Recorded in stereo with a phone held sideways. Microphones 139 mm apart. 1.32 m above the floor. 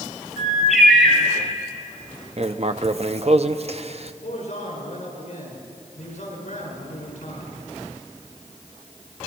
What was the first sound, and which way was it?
A bird, centre (ahead or behind).